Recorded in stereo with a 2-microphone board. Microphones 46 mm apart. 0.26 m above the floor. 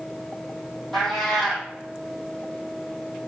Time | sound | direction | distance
0.9 | a cat meowing | 5° left (ahead or behind) | 1.9 m